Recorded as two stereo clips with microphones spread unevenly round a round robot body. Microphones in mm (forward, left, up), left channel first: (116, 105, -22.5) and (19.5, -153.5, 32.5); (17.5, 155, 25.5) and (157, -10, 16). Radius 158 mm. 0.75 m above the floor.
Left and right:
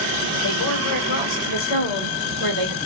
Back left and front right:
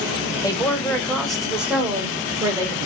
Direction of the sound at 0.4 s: 55° left.